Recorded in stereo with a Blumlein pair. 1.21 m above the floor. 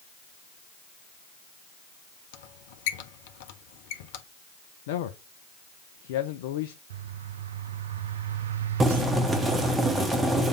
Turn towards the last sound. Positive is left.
turn(degrees=-15)